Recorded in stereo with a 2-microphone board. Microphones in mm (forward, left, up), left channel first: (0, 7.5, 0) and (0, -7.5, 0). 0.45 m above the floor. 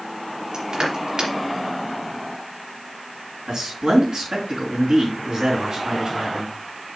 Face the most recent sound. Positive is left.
turn(degrees=-55)  # may be behind; listen again after turning